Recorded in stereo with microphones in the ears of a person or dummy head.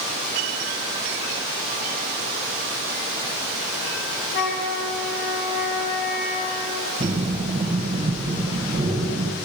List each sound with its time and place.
4.3 s a flute: 55° left (ahead or behind), 3 m
7.0 s breathing: 30° right (ahead or behind), 1.3 m